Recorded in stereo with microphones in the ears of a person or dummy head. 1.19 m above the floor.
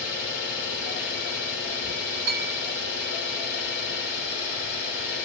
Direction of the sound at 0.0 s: 55° left (ahead or behind).